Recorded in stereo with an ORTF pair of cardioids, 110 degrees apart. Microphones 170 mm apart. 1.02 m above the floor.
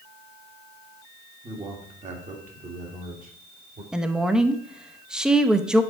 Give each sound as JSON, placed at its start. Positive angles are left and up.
{"t": 1.4, "sound": "a man speaking", "azimuth_deg": -35, "distance_m": 1.6}
{"t": 3.9, "sound": "a woman speaking", "azimuth_deg": -5, "distance_m": 0.7}